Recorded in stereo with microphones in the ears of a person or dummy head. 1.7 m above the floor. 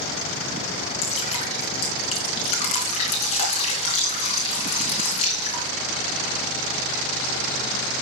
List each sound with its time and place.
1.0 s dripping: 35° left (ahead or behind), 3.5 m